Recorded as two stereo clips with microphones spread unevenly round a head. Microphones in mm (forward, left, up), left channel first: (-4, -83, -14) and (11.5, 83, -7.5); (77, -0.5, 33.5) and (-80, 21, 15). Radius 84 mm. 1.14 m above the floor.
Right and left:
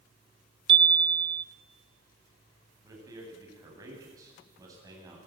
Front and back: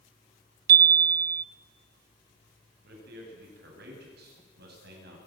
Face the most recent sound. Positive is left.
turn(degrees=155)